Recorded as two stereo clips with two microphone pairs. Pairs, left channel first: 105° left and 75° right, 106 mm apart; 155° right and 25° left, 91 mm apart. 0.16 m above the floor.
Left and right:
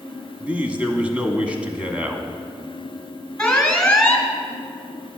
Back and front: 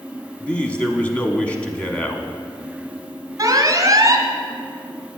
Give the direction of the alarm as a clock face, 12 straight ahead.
11 o'clock.